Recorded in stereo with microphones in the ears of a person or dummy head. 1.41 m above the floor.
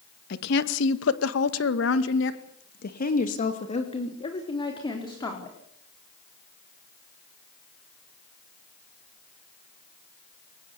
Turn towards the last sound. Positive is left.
turn(degrees=20)  # may be behind; listen again after turning